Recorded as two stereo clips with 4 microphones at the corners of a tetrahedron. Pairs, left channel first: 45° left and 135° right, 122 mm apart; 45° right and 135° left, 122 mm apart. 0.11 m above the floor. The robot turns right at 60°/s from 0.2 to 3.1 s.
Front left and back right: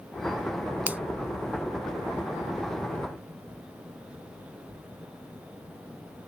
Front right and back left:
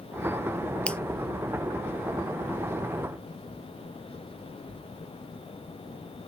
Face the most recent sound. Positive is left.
turn(degrees=35)